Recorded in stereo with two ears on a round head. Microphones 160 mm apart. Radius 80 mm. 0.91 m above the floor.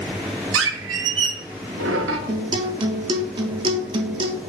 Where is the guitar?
30° right (ahead or behind), 0.8 m.